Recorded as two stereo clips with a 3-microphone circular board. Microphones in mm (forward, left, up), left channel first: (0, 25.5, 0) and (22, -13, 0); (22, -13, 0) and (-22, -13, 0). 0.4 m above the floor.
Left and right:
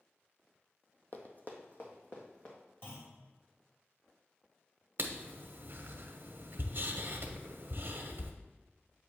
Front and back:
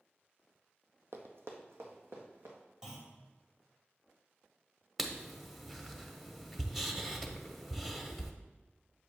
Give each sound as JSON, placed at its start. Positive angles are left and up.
{"t": 1.1, "sound": "running footsteps", "azimuth_deg": 165, "distance_m": 0.9}
{"t": 2.8, "sound": "a clunk", "azimuth_deg": 105, "distance_m": 1.9}
{"t": 5.0, "sound": "writing", "azimuth_deg": -90, "distance_m": 0.7}